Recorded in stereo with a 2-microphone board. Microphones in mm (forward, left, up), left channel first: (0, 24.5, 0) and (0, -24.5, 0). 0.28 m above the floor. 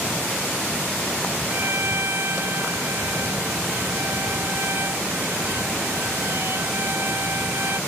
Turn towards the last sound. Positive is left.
turn(degrees=-55)  # may be behind; listen again after turning